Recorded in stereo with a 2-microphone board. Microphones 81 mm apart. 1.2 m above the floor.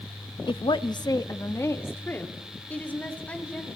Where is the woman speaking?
85° left, 1.0 m; by 3.7 s 15° left (ahead or behind), 4.5 m.